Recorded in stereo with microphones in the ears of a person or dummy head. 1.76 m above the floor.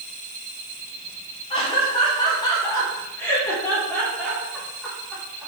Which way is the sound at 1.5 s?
30° left (ahead or behind).